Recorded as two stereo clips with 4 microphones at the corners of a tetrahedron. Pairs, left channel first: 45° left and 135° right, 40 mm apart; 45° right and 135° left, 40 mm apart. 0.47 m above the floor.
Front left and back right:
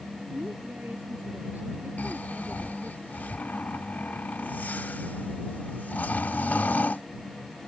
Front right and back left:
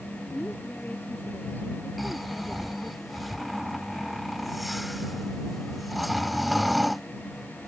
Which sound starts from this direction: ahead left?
Snoring, at 2.0 s.